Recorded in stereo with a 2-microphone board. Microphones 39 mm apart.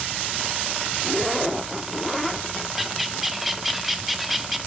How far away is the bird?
About 0.6 m.